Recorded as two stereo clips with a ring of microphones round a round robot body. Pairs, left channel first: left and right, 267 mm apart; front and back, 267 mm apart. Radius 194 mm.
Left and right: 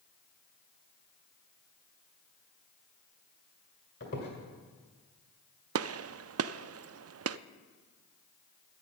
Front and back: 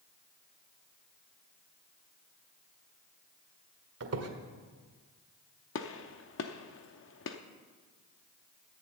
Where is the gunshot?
50° right, 0.5 m.